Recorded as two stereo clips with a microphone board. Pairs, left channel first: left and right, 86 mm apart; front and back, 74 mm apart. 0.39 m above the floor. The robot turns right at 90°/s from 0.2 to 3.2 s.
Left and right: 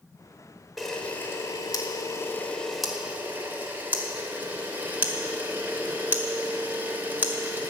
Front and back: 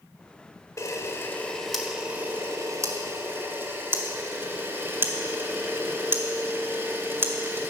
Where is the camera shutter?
Straight ahead, 1.6 m; by 7.7 s 145° right, 1.6 m.